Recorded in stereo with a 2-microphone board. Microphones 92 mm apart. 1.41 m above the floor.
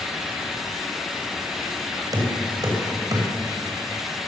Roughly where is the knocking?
Right.